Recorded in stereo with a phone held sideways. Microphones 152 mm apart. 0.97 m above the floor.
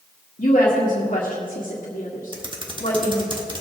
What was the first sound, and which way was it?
A woman speaking, 60° left (ahead or behind).